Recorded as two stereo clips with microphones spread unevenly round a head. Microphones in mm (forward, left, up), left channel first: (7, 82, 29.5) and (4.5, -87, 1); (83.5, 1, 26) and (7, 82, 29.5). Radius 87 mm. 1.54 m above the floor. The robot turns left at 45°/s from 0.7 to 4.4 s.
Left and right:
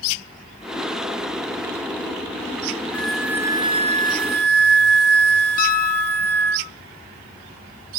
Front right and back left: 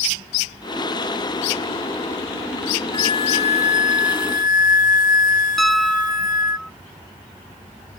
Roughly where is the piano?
Ahead left.